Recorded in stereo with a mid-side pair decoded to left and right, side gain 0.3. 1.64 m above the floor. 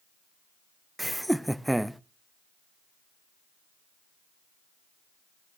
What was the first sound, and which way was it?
Laughter, 10° right.